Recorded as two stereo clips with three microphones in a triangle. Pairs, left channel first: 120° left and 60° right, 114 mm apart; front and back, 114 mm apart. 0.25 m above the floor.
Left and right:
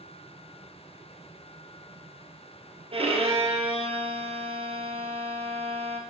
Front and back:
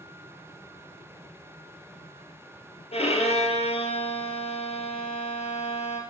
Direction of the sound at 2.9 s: 25° right.